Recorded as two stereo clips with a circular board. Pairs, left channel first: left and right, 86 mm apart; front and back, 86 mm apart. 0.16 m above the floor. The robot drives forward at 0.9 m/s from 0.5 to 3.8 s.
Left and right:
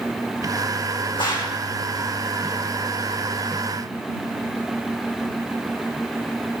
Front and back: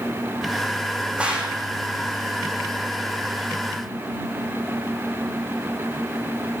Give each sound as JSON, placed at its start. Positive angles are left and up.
{"t": 1.2, "sound": "a gunshot", "azimuth_deg": 105, "distance_m": 3.5}